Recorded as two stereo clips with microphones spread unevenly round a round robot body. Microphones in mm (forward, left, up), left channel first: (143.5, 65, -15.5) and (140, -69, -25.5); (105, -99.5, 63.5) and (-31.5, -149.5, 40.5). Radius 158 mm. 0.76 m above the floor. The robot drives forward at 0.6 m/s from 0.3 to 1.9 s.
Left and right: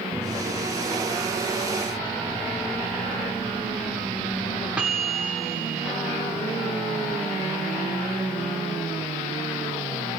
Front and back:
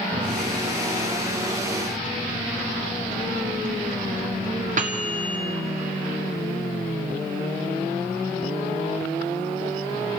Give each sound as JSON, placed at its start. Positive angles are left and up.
{"t": 0.1, "sound": "a microwave", "azimuth_deg": -170, "distance_m": 0.9}